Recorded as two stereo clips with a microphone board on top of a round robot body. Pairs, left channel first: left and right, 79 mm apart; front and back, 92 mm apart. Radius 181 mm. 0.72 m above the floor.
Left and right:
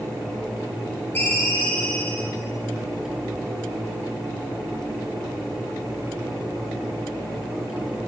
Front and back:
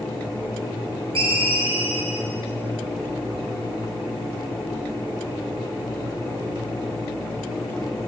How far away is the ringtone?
About 4 m.